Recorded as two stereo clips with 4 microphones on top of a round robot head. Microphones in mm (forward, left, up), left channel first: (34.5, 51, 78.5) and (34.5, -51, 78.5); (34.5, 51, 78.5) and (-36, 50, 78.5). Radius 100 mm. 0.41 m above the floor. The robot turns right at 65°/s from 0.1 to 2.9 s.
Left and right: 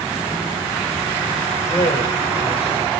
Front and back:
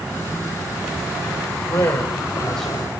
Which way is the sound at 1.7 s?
25° left.